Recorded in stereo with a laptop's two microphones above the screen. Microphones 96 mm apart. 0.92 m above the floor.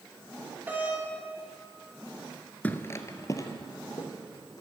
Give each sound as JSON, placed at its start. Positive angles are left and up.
{"t": 0.7, "sound": "a doorbell", "side_deg": -20, "distance_m": 2.0}
{"t": 2.6, "sound": "footsteps", "side_deg": 20, "distance_m": 0.9}